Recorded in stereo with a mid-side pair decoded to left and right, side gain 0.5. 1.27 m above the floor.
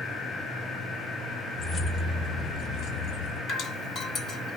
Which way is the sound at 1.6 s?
35° left.